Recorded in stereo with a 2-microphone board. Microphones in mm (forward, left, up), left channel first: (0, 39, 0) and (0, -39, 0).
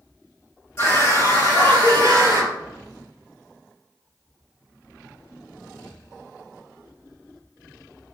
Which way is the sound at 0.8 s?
35° left (ahead or behind).